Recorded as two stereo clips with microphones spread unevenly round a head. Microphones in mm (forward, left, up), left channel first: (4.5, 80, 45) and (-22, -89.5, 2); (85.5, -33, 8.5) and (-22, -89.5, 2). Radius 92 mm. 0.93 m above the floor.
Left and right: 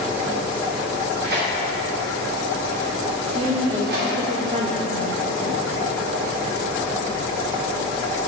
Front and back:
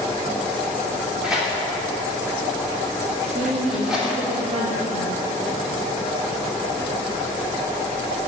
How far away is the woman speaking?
About 1.1 m.